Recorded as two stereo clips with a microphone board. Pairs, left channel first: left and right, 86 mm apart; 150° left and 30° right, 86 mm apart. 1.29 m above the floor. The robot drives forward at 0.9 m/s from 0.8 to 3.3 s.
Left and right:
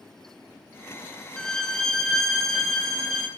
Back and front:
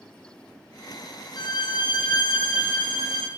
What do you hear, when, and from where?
1.4 s a violin: 170° left, 1.1 m; by 3.3 s 175° left, 3 m